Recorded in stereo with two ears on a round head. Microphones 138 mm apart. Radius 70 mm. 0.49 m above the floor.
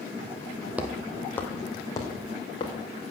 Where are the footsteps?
10° right (ahead or behind), 1.1 m; by 2.7 s 30° left (ahead or behind), 3 m.